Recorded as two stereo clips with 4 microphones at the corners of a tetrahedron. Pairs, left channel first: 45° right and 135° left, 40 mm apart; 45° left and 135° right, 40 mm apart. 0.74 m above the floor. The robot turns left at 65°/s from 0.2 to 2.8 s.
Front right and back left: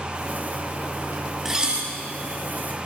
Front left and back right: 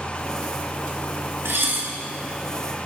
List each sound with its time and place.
1.4 s dishes clattering: 140° right, 4 m; by 1.9 s 170° right, 4 m